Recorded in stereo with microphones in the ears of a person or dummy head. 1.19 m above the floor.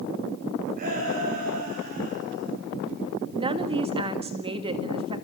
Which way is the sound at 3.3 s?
30° right (ahead or behind).